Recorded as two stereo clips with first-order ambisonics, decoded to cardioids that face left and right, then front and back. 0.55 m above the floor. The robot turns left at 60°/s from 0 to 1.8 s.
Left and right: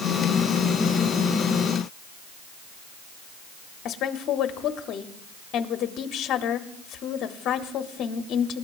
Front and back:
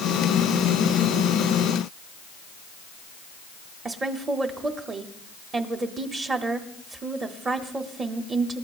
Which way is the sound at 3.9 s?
120° left.